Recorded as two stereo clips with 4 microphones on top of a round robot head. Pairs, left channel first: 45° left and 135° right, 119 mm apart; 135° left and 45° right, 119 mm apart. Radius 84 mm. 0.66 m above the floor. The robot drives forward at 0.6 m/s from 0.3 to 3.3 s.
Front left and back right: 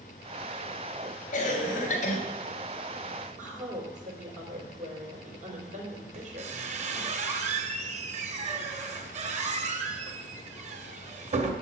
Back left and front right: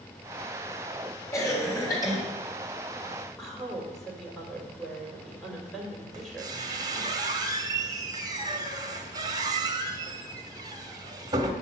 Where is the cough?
65° left, 3.5 m; by 2.2 s 75° left, 3.5 m.